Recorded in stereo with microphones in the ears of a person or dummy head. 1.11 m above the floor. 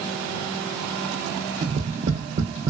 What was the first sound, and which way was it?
Tapping, 40° right (ahead or behind).